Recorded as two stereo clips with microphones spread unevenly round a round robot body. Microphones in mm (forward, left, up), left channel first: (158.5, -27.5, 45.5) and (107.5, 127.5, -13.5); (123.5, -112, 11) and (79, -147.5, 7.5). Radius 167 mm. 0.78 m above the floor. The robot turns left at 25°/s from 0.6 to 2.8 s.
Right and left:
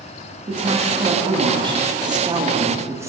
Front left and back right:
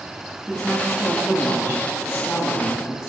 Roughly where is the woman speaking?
Behind left.